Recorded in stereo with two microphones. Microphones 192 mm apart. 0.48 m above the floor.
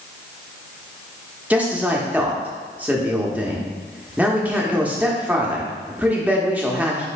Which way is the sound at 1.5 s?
5° right (ahead or behind).